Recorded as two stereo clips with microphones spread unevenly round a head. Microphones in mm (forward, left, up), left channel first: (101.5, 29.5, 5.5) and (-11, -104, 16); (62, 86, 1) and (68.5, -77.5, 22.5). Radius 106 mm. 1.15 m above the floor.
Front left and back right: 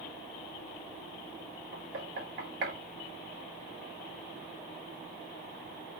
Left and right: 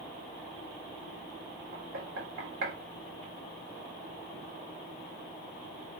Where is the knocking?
110° right, 3.5 m.